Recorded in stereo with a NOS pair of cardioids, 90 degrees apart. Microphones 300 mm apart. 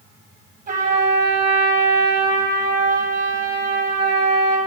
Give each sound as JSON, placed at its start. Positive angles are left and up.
{"t": 0.7, "sound": "a trumpet", "azimuth_deg": -30, "distance_m": 4.5}